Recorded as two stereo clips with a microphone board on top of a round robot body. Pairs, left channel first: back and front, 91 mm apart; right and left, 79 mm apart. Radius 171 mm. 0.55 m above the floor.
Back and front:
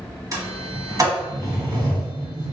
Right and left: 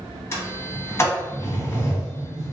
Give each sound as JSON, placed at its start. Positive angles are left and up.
{"t": 0.3, "sound": "a sliding door", "azimuth_deg": -40, "distance_m": 1.5}